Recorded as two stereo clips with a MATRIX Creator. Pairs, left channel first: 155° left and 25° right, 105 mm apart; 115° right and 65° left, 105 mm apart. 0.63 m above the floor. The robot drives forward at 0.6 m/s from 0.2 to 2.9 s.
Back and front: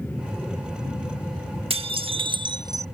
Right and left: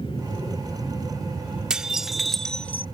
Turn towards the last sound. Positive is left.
turn(degrees=-65)